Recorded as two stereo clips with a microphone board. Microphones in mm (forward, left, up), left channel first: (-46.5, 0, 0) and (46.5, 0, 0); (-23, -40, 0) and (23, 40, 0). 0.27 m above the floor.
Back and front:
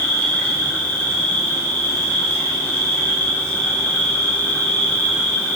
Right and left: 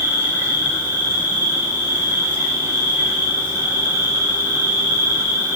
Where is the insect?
115° left, 4 m.